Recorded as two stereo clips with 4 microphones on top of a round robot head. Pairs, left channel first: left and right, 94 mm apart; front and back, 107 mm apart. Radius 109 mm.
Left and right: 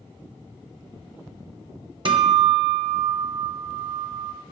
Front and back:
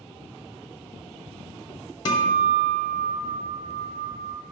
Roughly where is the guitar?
Ahead right.